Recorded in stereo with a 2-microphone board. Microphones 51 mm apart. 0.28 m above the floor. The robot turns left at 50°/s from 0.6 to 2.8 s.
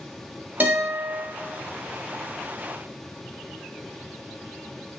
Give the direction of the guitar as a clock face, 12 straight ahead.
2 o'clock.